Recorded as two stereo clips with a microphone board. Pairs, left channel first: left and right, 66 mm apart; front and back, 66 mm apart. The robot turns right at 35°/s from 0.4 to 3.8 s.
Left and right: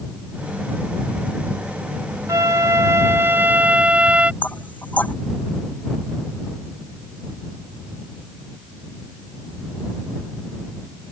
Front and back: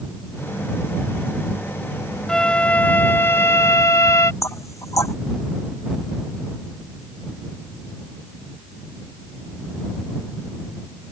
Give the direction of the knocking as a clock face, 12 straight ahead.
11 o'clock.